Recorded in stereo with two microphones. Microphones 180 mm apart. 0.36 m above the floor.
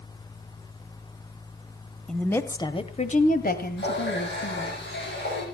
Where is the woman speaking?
5° left (ahead or behind), 1.4 m; by 4.8 s 70° left (ahead or behind), 2.5 m.